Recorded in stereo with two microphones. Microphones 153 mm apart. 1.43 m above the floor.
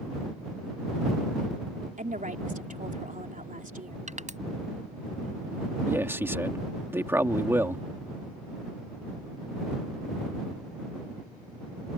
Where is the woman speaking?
60° right (ahead or behind).